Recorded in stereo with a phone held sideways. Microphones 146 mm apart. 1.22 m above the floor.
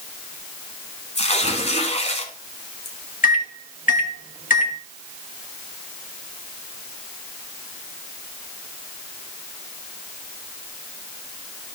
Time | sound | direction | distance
1.1 | tearing paper | 50° left (ahead or behind) | 1.6 m
3.2 | a microwave | 75° left (ahead or behind) | 1.0 m